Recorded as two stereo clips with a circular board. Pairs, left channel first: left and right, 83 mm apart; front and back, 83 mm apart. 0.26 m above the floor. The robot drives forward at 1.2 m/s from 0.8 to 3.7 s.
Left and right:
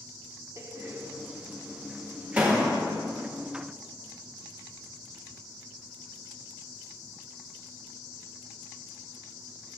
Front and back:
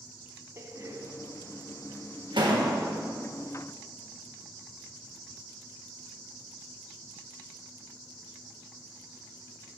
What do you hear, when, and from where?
0.6 s a door slam: 130° right, 1.1 m; by 2.9 s 165° right, 3.5 m